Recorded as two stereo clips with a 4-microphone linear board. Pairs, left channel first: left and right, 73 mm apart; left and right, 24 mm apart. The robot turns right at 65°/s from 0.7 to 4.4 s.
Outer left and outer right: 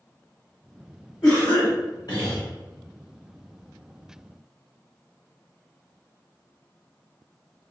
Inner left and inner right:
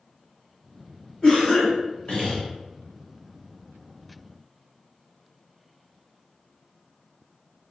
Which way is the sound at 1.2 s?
55° left.